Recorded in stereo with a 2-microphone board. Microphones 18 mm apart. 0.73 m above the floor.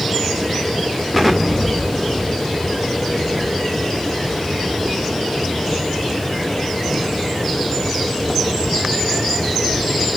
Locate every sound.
1.1 s an explosion: centre (ahead or behind), 1.6 m